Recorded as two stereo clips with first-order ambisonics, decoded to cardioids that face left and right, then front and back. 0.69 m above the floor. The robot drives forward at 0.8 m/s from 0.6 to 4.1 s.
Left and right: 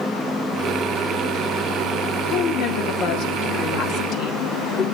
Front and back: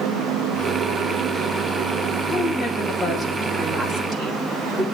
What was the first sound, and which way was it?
A woman speaking, 75° left.